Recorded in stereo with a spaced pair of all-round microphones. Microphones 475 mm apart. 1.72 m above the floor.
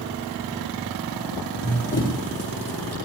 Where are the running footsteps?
50° left (ahead or behind), 7 m; by 3.0 s 55° left (ahead or behind), 7.5 m.